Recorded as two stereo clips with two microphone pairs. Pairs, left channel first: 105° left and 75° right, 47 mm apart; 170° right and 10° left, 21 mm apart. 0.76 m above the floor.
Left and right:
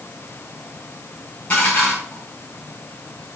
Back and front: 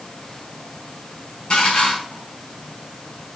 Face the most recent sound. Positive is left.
turn(degrees=165)